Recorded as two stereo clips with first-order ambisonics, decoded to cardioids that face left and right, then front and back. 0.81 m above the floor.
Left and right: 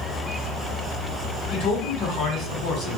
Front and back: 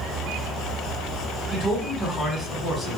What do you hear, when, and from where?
1.5 s a man speaking: 70° left, 1.5 m